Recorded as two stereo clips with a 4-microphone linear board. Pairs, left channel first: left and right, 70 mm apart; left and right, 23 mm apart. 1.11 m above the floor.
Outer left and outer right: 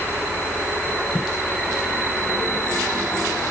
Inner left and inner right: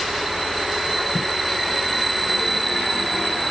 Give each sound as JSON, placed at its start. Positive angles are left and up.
{"t": 1.1, "sound": "footsteps", "side_deg": -5}